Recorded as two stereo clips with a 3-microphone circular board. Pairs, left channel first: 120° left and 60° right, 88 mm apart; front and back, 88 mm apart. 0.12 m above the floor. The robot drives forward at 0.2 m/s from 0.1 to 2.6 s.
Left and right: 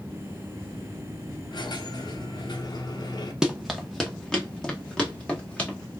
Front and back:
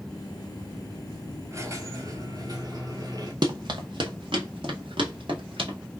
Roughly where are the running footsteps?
Behind right.